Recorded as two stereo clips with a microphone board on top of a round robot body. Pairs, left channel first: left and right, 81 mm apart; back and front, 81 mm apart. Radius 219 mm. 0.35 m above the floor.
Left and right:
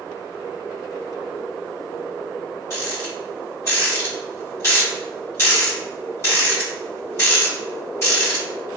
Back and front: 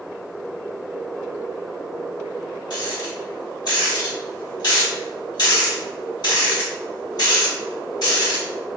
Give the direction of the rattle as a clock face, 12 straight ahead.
7 o'clock.